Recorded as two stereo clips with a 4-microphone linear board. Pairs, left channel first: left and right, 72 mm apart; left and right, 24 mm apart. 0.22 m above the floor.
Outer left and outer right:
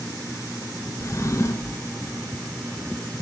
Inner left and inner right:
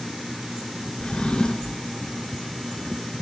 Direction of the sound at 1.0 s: 40° left (ahead or behind).